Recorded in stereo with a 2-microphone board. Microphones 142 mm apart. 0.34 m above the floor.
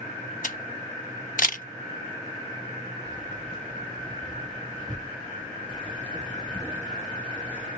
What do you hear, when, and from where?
0.4 s a camera shutter: 70° left (ahead or behind), 0.6 m
3.0 s keys jangling: 10° left (ahead or behind), 1.5 m